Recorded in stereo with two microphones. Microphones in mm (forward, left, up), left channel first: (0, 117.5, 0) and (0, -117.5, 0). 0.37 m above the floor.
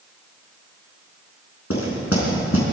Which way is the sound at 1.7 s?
75° left (ahead or behind).